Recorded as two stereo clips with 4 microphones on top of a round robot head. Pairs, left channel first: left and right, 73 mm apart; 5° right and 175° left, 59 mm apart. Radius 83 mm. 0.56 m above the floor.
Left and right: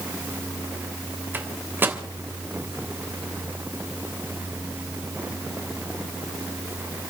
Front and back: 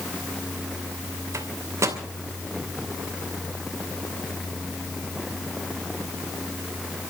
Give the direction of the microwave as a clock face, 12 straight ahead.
5 o'clock.